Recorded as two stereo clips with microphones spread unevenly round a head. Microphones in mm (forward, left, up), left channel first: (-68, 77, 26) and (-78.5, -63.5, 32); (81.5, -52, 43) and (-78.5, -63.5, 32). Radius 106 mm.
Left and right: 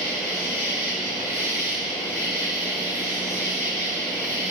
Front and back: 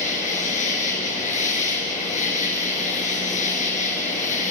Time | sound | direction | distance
0.0 | an insect | 35° right | 6.5 m